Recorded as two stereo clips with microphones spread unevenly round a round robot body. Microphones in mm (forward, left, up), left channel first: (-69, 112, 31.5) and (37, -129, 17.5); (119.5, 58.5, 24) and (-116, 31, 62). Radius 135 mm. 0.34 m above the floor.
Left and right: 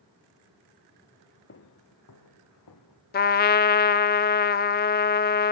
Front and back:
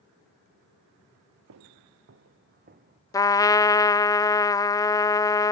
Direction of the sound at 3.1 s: 70° left.